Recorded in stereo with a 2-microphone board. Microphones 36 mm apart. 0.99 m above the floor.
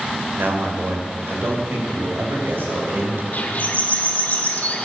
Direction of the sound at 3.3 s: 45° left (ahead or behind).